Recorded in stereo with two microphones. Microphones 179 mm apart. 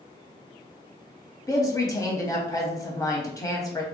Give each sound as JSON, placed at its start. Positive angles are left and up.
{"t": 1.5, "sound": "a woman speaking", "side_deg": 20, "distance_m": 1.0}